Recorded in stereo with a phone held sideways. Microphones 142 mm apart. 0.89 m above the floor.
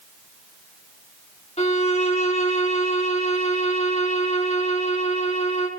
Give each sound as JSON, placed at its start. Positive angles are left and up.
{"t": 1.6, "sound": "a violin", "side_deg": 45, "distance_m": 1.8}